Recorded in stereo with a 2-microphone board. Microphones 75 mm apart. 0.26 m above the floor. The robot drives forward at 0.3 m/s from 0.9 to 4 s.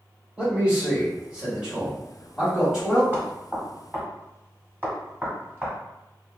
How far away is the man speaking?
About 1.4 m.